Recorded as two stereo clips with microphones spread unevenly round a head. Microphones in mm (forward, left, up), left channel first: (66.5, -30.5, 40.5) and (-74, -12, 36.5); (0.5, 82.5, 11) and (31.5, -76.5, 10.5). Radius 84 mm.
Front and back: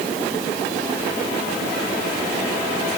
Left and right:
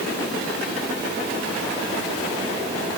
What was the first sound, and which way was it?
Only background noise.